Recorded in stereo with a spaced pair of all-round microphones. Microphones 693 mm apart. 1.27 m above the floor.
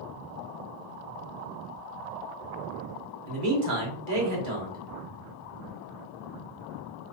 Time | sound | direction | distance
3.3 | a man speaking | 80° right | 1.3 m